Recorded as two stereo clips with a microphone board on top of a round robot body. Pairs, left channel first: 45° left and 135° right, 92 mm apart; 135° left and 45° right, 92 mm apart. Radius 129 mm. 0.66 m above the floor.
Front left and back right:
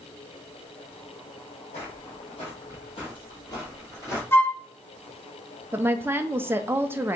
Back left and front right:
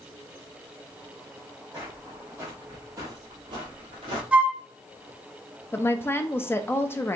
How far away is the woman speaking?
About 0.5 m.